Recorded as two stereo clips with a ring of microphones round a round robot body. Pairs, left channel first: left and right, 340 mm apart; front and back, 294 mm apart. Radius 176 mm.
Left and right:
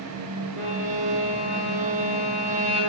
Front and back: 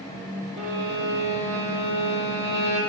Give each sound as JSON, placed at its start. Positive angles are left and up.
{"t": 0.6, "sound": "a violin", "azimuth_deg": -160, "distance_m": 2.5}